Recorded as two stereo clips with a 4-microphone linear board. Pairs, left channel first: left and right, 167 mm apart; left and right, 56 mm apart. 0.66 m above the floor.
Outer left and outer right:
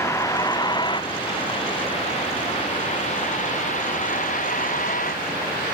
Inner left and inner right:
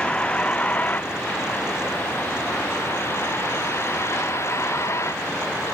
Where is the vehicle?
15° left (ahead or behind); by 5.8 s 50° left (ahead or behind).